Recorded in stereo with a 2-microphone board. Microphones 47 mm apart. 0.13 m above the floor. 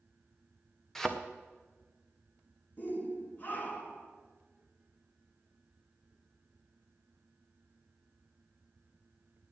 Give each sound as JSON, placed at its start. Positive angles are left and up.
{"t": 0.9, "sound": "a thud", "side_deg": 10, "distance_m": 1.7}
{"t": 2.8, "sound": "a shout", "side_deg": 40, "distance_m": 2.0}